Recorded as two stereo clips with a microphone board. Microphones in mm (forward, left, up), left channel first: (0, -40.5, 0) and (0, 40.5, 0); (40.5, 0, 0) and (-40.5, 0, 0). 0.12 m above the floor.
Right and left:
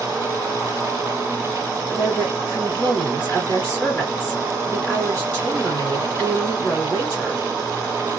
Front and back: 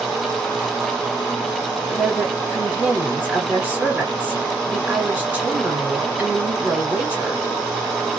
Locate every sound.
1.9 s a woman speaking: 140° right, 1.8 m